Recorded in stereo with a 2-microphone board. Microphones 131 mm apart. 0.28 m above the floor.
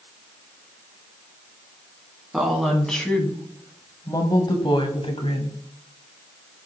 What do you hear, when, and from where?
2.3 s a woman speaking: centre (ahead or behind), 2.5 m; by 5.6 s 55° left (ahead or behind), 2 m